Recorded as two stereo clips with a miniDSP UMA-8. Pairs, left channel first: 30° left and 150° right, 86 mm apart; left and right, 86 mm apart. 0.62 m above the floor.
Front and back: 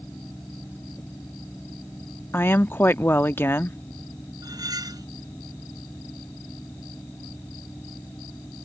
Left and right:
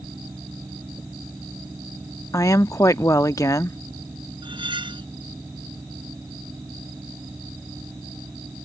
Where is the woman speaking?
80° left.